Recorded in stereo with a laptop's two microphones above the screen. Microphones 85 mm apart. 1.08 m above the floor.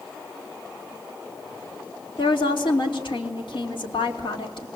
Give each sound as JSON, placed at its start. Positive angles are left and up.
{"t": 2.2, "sound": "a woman speaking", "side_deg": 75, "distance_m": 3.0}